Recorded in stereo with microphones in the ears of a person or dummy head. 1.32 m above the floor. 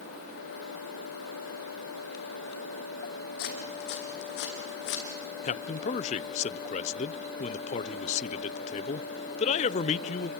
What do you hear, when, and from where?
3.4 s footsteps: 60° left (ahead or behind), 3.5 m; by 5.0 s 70° left (ahead or behind), 4 m
5.4 s a man speaking: 35° left (ahead or behind), 0.5 m